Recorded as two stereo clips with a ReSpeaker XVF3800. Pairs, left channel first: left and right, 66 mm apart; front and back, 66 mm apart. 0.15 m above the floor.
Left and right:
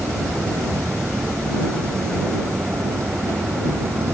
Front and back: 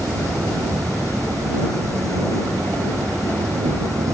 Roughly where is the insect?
Behind right.